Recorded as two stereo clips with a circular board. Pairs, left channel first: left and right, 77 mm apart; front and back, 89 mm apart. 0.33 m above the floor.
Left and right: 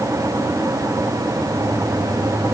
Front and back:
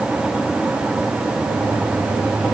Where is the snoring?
No snoring in this recording.